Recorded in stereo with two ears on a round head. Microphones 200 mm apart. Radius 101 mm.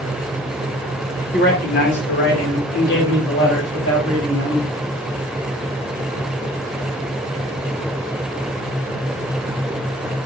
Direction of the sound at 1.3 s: 45° left (ahead or behind).